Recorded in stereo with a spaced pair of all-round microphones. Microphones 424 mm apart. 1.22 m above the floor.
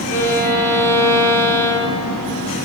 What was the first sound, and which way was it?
A violin, 20° left (ahead or behind).